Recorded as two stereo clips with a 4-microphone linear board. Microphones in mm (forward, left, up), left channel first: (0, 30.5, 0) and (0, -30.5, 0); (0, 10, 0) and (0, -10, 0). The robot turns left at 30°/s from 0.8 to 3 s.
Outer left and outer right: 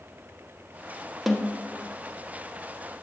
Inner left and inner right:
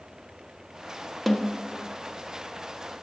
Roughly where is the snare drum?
Centre.